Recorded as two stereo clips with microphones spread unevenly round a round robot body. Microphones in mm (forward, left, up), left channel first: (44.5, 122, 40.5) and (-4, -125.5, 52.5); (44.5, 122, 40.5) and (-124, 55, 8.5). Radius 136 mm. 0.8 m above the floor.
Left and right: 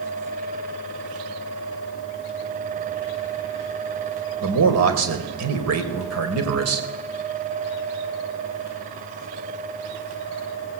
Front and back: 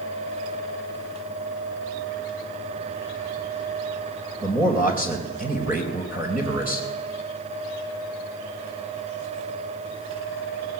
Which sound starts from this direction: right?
A man speaking, at 4.4 s.